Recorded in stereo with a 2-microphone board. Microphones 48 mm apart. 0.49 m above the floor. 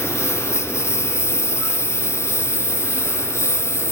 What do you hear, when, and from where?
0.0 s a lawn mower: 65° left (ahead or behind)